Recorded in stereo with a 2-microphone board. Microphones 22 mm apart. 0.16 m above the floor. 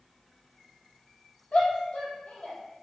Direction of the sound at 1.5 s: 75° left (ahead or behind).